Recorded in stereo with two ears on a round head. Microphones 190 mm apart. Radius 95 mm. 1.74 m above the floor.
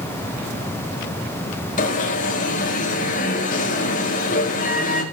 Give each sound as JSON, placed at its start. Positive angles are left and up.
{"t": 1.8, "sound": "an alarm", "side_deg": 40, "distance_m": 3.5}